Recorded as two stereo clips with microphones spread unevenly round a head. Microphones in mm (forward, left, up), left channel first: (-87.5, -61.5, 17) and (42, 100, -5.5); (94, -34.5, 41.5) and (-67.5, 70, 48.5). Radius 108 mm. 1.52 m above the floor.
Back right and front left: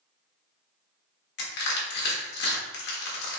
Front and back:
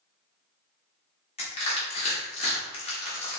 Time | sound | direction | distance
1.4 | crushing | 95° right | 1.2 m